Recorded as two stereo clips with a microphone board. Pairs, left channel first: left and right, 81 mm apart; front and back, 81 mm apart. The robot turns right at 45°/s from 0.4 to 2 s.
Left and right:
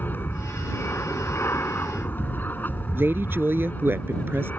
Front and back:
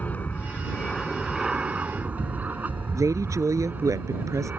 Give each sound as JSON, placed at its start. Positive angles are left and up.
{"t": 0.0, "sound": "an aircraft", "azimuth_deg": 50}
{"t": 3.0, "sound": "a woman speaking", "azimuth_deg": -145}